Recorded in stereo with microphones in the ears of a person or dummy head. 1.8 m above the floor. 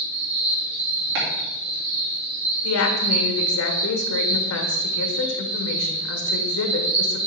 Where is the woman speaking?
75° left (ahead or behind), 1.3 m.